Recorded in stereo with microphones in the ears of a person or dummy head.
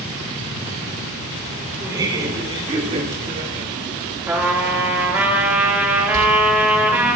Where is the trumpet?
10° right (ahead or behind), 2 m.